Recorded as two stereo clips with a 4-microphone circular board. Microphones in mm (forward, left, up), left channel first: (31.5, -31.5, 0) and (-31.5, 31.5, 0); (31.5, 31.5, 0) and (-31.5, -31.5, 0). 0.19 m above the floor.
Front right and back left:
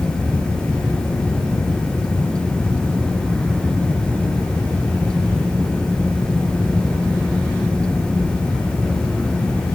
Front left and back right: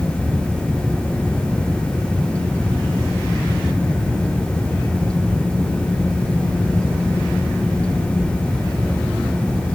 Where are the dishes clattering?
No dishes clattering in this recording.